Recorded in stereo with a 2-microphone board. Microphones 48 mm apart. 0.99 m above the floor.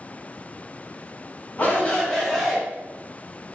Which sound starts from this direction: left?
A shout, at 1.6 s.